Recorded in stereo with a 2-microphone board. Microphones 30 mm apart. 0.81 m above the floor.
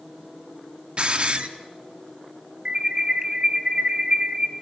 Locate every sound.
1.0 s a hiss: 35° right (ahead or behind), 1.1 m
2.6 s an alarm: 30° right (ahead or behind), 1.9 m